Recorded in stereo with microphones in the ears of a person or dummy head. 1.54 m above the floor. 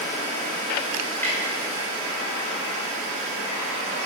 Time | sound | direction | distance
1.2 | a clunk | 15° left (ahead or behind) | 5.5 m